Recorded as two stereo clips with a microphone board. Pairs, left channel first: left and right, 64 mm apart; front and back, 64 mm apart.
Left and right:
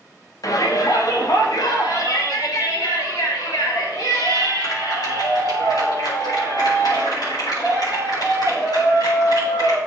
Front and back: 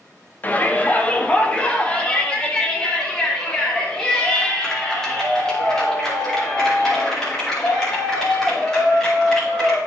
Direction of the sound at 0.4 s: 65° left.